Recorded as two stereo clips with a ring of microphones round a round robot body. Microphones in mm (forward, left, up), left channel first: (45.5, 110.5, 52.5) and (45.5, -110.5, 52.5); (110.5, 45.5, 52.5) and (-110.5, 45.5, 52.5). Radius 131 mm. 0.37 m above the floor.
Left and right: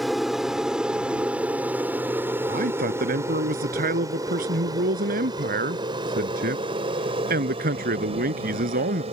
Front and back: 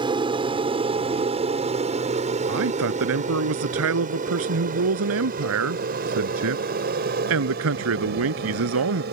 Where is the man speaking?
145° right.